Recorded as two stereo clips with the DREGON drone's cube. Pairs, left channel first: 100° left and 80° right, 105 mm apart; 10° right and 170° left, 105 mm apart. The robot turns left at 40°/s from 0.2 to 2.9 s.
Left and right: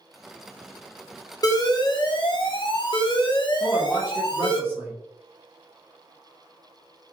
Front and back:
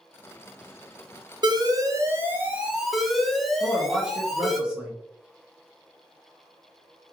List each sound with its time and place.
1.4 s an alarm: 140° left, 0.5 m; by 4.6 s 80° left, 0.5 m
3.6 s a man speaking: 120° right, 0.9 m